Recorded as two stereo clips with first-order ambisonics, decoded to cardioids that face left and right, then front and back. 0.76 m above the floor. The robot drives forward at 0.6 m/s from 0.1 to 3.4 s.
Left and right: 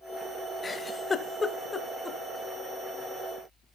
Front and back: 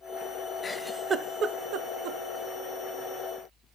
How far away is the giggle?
About 0.5 m.